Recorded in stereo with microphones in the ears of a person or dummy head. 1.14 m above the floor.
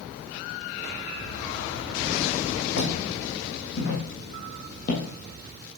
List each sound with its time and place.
2.8 s footsteps: 70° left (ahead or behind), 4.5 m; by 5.0 s 50° left (ahead or behind), 2.5 m